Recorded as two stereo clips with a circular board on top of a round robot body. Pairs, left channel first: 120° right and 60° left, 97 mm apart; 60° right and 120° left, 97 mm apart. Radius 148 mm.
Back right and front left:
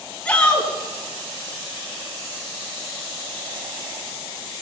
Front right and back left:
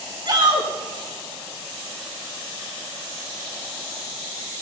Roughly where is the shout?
Behind.